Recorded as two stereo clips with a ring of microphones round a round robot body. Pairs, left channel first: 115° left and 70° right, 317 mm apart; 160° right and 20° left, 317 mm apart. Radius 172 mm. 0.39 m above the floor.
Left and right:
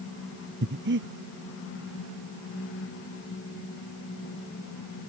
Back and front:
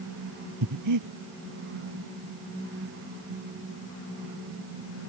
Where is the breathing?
10° right.